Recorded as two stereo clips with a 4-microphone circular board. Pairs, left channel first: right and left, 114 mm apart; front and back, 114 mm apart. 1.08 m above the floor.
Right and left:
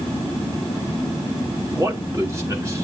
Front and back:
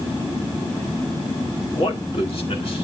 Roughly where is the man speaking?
Ahead left.